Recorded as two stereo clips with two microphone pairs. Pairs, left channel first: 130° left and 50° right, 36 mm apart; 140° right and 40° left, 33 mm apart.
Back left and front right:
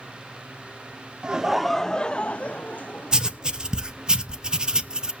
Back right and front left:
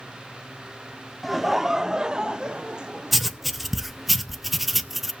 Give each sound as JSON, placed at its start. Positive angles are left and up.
{"t": 1.2, "sound": "laughter", "azimuth_deg": -45, "distance_m": 0.5}
{"t": 3.1, "sound": "writing", "azimuth_deg": -40, "distance_m": 0.6}